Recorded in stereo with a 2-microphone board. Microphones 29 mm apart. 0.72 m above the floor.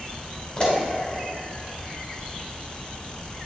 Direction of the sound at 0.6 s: 40° left (ahead or behind).